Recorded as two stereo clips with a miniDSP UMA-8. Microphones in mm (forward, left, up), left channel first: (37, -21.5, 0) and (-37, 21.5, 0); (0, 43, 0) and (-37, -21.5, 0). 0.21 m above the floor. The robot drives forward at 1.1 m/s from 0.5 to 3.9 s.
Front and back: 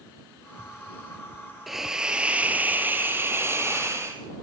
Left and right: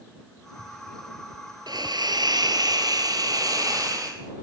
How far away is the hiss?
About 2.5 m.